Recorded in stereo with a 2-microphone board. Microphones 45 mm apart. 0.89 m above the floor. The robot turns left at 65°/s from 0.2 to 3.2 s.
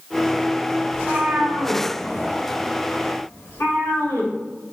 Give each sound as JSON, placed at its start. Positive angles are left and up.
{"t": 0.9, "sound": "a cat meowing", "side_deg": -85, "distance_m": 2.5}